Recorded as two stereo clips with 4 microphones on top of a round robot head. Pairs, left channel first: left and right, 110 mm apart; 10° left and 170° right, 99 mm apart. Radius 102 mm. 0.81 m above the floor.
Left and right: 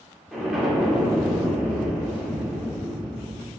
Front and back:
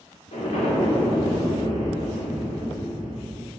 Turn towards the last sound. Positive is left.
turn(degrees=0)